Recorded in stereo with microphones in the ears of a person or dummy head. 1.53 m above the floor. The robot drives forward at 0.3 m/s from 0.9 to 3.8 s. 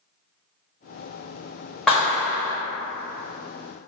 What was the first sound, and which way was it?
A clap, centre (ahead or behind).